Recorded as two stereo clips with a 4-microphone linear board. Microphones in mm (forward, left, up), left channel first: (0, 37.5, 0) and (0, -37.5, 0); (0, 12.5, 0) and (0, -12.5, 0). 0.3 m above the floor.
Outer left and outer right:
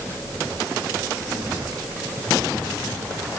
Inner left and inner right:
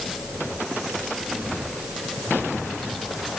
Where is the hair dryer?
No hair dryer in this recording.